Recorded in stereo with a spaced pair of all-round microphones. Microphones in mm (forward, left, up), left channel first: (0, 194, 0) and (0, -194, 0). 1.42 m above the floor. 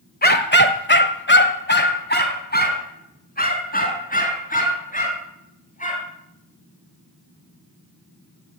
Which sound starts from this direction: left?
A dog barking, at 0.2 s.